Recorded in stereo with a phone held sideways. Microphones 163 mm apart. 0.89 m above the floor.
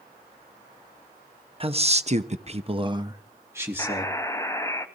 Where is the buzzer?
20° left (ahead or behind), 0.9 m.